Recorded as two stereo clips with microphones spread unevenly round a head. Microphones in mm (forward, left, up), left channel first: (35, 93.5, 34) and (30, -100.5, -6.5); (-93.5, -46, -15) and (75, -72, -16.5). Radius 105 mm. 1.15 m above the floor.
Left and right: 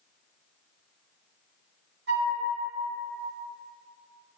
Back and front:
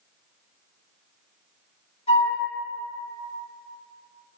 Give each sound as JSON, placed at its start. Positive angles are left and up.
{"t": 2.1, "sound": "a flute", "azimuth_deg": -135, "distance_m": 0.9}